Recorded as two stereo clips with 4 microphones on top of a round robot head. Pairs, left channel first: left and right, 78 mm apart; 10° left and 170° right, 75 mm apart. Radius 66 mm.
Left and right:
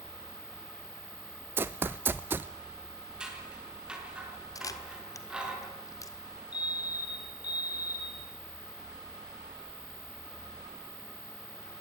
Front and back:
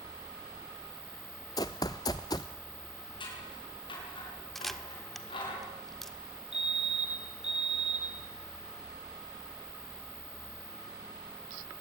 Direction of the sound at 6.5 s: 110° left.